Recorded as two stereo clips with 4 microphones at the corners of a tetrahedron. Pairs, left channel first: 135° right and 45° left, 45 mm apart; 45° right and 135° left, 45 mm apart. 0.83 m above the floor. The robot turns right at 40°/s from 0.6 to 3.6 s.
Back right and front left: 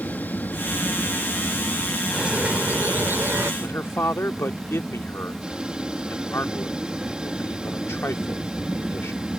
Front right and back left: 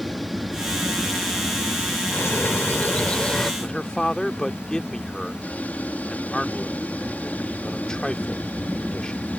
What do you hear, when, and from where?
0.0 s an aircraft: 135° right; by 9.4 s 15° right
2.1 s a bird: 25° right; by 3.5 s 35° left
3.6 s a man speaking: 120° right